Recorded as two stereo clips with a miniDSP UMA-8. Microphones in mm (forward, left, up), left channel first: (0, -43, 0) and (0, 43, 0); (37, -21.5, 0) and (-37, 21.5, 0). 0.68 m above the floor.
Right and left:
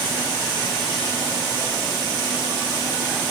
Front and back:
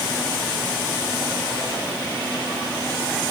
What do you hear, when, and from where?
Only background noise.